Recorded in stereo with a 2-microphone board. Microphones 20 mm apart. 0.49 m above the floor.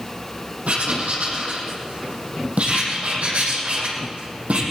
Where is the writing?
85° right, 5 m.